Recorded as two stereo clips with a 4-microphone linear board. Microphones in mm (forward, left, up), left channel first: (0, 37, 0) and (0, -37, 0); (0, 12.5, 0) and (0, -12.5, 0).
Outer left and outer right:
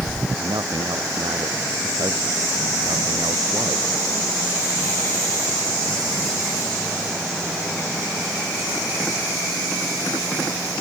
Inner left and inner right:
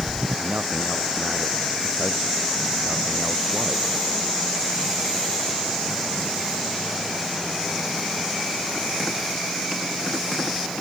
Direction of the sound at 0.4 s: 65° right (ahead or behind).